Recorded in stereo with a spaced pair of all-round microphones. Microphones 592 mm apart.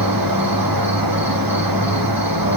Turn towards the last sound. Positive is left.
turn(degrees=-35)  # may be behind; listen again after turning